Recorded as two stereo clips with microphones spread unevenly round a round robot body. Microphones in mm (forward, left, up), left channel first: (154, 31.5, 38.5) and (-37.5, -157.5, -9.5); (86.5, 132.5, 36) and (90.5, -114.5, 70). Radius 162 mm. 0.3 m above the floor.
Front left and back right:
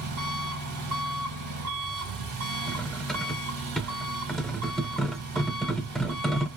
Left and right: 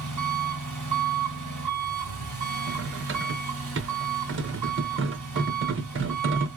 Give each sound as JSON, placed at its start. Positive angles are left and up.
{"t": 0.0, "sound": "an engine running", "azimuth_deg": -155, "distance_m": 2.5}
{"t": 2.7, "sound": "cutlery clinking", "azimuth_deg": -50, "distance_m": 0.8}